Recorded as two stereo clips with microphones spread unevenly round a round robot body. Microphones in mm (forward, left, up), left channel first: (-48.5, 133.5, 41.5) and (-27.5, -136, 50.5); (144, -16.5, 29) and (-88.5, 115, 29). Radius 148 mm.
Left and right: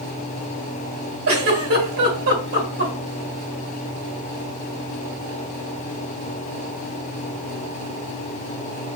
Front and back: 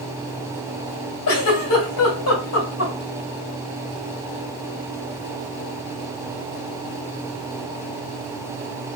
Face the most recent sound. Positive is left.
turn(degrees=-55)